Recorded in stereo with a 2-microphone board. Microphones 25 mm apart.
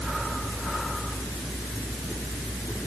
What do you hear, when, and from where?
Only background noise.